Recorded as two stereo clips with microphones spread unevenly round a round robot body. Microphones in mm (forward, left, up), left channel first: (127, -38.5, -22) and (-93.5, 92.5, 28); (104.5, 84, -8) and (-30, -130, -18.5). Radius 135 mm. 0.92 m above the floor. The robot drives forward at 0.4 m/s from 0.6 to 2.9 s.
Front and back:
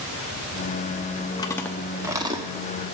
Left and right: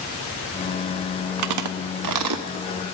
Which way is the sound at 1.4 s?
110° right.